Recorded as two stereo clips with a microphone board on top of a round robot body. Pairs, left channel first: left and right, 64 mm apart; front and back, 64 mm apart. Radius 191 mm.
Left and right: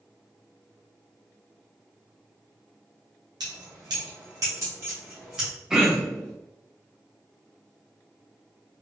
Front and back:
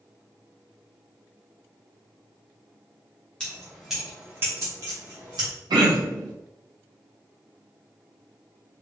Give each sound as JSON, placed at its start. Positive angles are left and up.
{"t": 3.4, "sound": "keys jangling", "azimuth_deg": -75, "distance_m": 0.8}
{"t": 5.7, "sound": "throat clearing", "azimuth_deg": -170, "distance_m": 0.7}